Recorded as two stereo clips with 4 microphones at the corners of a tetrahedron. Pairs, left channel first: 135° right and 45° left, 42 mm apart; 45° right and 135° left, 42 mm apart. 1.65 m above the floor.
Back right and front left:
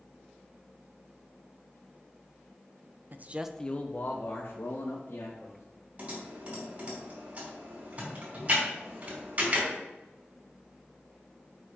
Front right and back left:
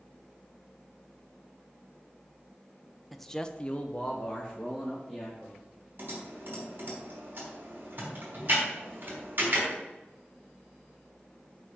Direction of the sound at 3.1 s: 45° left.